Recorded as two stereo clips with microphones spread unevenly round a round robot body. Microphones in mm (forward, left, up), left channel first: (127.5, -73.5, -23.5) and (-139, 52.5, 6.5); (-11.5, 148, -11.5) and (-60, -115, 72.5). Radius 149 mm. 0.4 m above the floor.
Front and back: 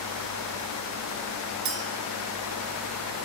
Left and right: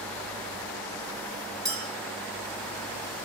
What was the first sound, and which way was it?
A clink, straight behind.